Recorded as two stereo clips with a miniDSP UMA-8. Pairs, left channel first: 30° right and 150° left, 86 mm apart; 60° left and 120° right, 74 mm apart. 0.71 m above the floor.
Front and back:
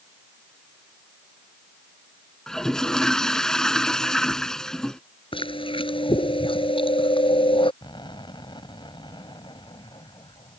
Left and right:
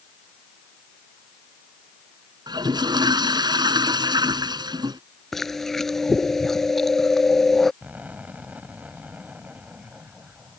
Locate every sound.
2.5 s a toilet flushing: 115° right
5.3 s chewing: 25° right
7.8 s an explosion: 55° right